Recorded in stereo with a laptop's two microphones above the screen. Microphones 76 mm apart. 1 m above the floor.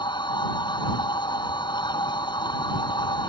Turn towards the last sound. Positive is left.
turn(degrees=80)